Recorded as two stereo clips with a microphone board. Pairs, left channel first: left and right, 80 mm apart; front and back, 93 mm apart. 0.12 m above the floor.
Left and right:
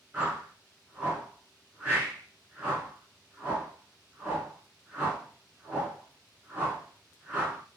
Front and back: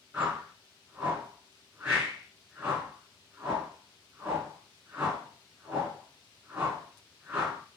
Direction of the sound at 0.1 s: 135° right.